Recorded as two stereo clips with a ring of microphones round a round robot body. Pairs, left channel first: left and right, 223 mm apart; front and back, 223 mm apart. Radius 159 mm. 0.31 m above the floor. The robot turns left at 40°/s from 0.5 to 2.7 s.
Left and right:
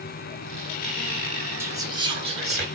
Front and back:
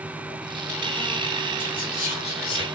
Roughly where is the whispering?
Ahead.